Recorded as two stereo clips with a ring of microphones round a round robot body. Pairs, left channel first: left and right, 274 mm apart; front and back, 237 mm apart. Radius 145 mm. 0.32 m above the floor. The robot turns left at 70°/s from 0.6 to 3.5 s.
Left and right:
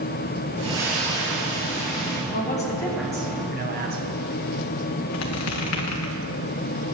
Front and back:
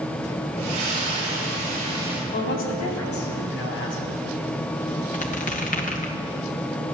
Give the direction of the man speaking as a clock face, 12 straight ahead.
10 o'clock.